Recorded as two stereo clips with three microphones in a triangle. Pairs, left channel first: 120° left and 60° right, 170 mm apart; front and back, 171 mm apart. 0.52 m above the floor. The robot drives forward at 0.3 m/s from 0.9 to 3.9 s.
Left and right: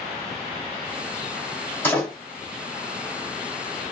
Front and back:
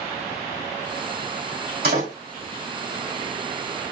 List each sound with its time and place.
1.8 s a door slam: 160° right, 2 m